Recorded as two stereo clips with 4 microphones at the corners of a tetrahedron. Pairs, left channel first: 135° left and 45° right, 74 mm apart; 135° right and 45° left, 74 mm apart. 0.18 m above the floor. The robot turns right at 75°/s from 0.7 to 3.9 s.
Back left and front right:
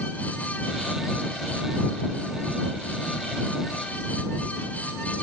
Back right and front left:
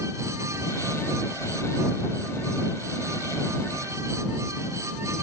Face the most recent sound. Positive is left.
No sound to turn to.